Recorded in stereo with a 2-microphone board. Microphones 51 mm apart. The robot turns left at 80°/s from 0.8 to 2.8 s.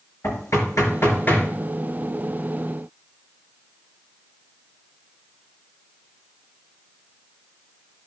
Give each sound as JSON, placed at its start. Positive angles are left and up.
{"t": 0.2, "sound": "knocking", "side_deg": 70, "distance_m": 4.5}